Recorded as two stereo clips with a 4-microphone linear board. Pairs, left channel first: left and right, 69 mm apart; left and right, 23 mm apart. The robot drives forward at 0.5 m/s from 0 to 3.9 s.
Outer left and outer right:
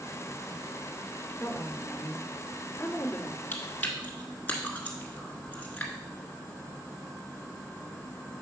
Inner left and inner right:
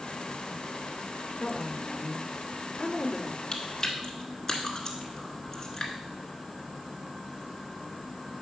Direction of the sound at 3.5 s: 25° left (ahead or behind).